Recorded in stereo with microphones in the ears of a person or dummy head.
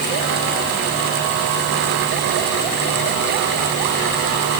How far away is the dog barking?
No dog barking in this recording.